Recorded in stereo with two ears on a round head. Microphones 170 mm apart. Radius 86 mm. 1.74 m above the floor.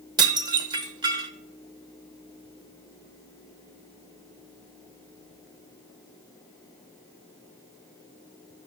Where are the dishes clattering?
25° right (ahead or behind), 1.1 m.